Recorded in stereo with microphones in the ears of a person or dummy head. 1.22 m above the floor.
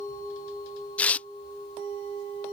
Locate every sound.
1.0 s tearing paper: 10° left (ahead or behind)